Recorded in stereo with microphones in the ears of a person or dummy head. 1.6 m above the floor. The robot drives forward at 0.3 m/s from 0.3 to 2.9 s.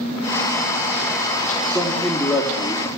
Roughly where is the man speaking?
Centre.